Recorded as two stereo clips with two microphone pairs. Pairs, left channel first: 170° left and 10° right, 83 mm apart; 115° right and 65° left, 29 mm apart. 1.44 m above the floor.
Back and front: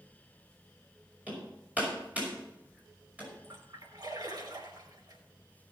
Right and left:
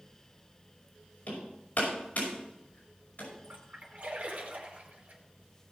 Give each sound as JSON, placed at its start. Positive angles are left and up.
{"t": 1.3, "sound": "hammering", "azimuth_deg": -85, "distance_m": 5.5}
{"t": 3.4, "sound": "a splash", "azimuth_deg": 20, "distance_m": 3.0}